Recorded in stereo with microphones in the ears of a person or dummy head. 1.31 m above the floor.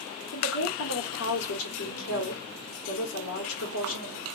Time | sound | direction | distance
0.3 | a woman speaking | 75° left (ahead or behind) | 1.3 m